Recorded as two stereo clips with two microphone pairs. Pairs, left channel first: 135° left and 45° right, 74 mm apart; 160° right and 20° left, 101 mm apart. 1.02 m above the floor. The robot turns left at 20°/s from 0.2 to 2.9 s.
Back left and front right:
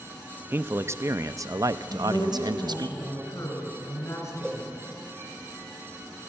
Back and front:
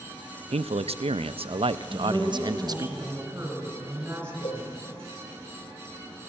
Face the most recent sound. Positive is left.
turn(degrees=-140)